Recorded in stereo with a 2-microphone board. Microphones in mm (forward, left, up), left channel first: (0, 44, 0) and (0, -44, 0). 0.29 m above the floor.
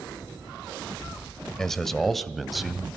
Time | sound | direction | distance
1.6 | a man speaking | 5° left (ahead or behind) | 1.1 m